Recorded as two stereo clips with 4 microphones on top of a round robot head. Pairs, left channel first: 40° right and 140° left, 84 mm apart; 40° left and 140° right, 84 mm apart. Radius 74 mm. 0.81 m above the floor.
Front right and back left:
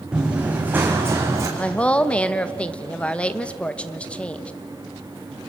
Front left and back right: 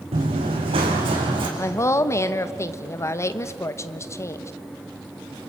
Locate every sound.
0.1 s running footsteps: 140° right, 4 m; by 1.5 s 165° right, 4 m
1.6 s a woman speaking: 25° left, 1.0 m